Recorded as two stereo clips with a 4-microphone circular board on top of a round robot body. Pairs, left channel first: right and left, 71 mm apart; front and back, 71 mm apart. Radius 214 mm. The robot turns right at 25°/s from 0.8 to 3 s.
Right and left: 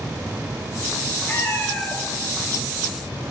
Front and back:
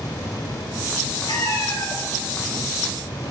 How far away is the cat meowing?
About 1.8 m.